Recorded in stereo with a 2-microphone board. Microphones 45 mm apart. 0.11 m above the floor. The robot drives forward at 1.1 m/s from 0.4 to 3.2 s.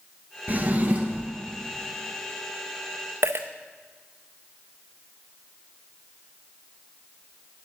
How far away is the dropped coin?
About 0.6 m.